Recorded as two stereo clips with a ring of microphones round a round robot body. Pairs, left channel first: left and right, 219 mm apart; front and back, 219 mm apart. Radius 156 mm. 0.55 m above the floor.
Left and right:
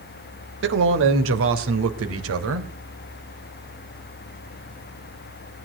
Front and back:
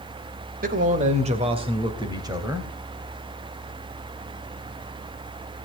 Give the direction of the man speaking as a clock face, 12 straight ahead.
4 o'clock.